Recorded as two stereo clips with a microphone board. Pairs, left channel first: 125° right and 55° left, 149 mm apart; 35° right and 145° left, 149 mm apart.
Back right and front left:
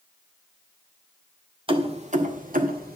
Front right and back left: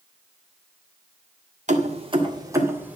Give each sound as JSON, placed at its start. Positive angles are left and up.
{"t": 1.7, "sound": "keys jangling", "azimuth_deg": 110, "distance_m": 1.6}